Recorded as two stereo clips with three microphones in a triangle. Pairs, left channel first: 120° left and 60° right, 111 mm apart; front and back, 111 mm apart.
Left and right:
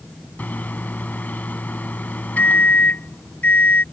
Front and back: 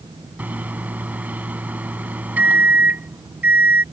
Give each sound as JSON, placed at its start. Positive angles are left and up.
{"t": 0.4, "sound": "a microwave", "azimuth_deg": 150}